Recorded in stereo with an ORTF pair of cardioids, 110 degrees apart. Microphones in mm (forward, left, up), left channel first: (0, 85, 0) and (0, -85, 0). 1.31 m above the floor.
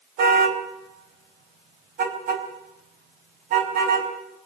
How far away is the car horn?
About 3.5 m.